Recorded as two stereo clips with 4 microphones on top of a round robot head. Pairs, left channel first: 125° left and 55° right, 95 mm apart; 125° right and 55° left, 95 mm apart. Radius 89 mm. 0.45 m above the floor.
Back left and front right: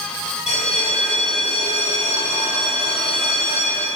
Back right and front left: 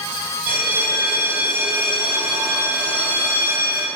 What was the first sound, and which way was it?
A bell, 125° left.